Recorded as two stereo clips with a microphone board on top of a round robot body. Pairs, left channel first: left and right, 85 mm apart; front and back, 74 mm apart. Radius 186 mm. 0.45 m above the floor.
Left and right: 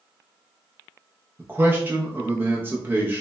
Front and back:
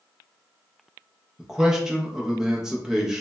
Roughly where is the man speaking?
Right.